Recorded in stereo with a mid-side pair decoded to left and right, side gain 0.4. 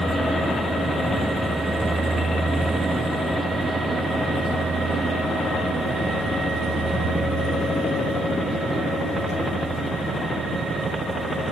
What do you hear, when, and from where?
0.0 s a vehicle: 5° right; by 11.5 s 70° right